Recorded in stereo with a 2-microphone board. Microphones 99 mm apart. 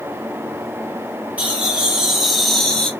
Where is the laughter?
15° right (ahead or behind), 1.8 m; by 2.9 s 10° left (ahead or behind), 1.5 m.